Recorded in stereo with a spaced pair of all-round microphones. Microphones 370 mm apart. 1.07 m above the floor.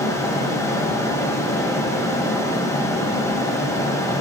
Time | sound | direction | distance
0.0 | a fan | 10° left (ahead or behind) | 1.2 m